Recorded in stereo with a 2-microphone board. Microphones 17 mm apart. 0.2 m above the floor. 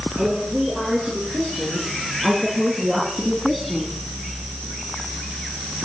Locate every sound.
0.2 s a woman speaking: 60° right (ahead or behind), 6 m; by 4.0 s 10° right (ahead or behind), 1.9 m